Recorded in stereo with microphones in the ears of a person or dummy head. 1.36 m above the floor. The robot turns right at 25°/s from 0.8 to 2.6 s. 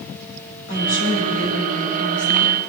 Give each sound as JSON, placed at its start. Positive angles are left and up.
{"t": 0.7, "sound": "a woman speaking", "azimuth_deg": 70, "distance_m": 6.0}